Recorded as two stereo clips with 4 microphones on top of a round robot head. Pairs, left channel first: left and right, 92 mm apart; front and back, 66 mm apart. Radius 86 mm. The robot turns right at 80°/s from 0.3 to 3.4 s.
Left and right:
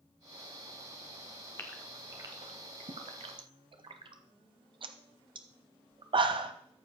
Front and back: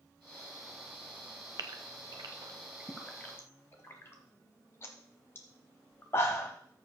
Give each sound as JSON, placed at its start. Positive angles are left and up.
{"t": 1.6, "sound": "a gasp", "azimuth_deg": 160, "distance_m": 0.8}